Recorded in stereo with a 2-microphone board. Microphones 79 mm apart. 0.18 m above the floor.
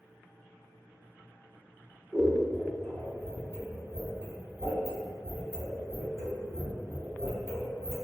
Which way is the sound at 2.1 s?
25° right (ahead or behind).